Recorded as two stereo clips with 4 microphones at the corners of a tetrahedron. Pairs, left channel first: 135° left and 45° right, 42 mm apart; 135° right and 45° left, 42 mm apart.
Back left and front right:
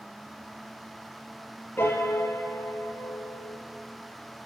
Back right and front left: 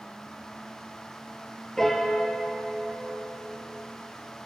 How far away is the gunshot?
No gunshot in this recording.